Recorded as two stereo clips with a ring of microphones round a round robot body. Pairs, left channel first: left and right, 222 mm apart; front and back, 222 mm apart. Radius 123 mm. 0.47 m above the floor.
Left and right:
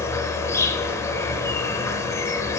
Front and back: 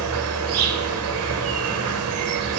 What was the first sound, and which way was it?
An insect, 165° left.